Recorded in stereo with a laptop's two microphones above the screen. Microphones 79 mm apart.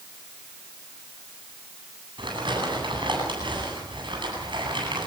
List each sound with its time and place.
2.2 s crumpling: 85° right, 10 m